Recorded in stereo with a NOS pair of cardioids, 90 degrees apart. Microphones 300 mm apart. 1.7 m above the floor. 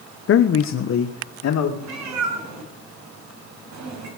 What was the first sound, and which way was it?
A man speaking, 50° left.